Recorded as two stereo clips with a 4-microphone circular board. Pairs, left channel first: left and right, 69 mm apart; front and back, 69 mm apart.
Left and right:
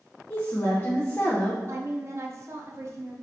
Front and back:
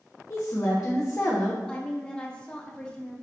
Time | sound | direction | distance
0.3 | a woman speaking | 35° left | 0.7 m
1.7 | a woman speaking | 70° right | 0.7 m